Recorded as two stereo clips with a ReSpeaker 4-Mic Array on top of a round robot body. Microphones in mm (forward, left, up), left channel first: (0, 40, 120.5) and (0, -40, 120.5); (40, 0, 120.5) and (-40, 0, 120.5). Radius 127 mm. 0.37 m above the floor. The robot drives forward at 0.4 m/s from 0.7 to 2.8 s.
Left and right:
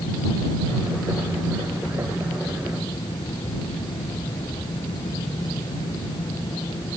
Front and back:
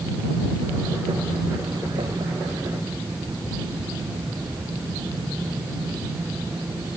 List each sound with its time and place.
Only background noise.